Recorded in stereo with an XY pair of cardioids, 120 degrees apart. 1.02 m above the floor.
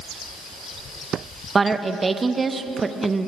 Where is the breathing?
No breathing in this recording.